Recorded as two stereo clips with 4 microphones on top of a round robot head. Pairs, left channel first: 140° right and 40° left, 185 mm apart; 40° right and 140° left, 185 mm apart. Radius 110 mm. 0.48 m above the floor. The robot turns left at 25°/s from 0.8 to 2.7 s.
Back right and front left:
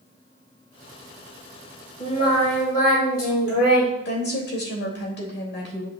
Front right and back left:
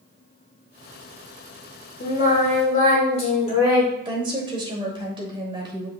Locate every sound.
2.0 s singing: 80° right, 3.5 m; by 3.9 s 100° right, 3.5 m
4.0 s a woman speaking: 160° right, 2.5 m